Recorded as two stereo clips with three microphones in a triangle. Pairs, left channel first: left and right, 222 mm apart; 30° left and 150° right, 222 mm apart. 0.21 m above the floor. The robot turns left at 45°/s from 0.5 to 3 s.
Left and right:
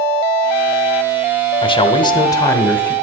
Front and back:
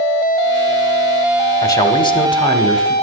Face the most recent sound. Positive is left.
turn(degrees=15)